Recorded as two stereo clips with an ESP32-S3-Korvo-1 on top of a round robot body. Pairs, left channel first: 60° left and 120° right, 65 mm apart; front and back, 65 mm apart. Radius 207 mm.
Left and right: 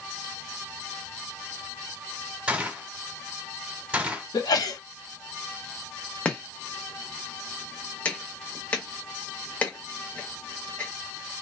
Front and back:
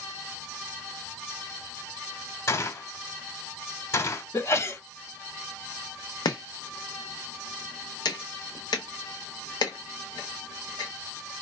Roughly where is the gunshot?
Ahead right.